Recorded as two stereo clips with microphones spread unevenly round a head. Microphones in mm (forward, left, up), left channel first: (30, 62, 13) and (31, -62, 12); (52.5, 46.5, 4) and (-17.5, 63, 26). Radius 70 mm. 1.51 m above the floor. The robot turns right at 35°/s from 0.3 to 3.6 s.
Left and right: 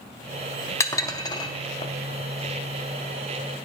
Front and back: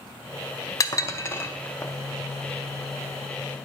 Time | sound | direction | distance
0.8 | dishes clattering | 30° left | 0.6 m